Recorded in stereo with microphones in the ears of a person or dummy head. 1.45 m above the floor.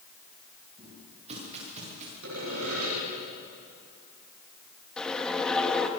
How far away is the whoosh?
About 1.8 m.